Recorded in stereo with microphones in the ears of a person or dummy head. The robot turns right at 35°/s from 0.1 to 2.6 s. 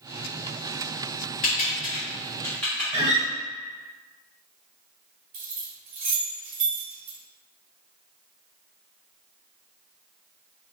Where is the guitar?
30° right (ahead or behind), 1.9 m.